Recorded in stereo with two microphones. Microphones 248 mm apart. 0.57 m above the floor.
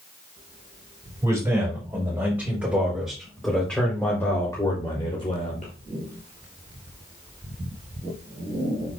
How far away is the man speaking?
About 3.5 m.